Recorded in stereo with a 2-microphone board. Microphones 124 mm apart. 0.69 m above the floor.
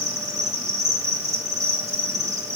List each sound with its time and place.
0.0 s an insect: 65° right (ahead or behind), 1.9 m